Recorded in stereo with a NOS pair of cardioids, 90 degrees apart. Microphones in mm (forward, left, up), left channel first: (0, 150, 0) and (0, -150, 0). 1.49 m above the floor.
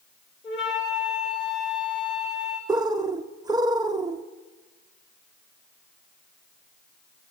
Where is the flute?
40° left, 7 m.